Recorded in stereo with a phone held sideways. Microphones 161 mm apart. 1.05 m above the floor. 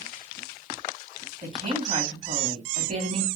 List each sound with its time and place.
1.4 s a woman speaking: 50° right (ahead or behind), 2.5 m